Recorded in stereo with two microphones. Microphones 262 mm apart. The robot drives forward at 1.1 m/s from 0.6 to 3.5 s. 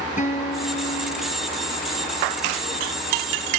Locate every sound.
0.2 s a guitar: 30° left (ahead or behind), 1.3 m; by 1.4 s 60° left (ahead or behind), 0.8 m